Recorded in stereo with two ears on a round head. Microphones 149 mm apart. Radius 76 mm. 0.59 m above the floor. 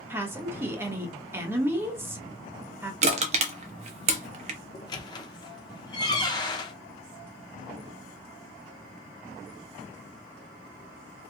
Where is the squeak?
25° left (ahead or behind), 0.5 m.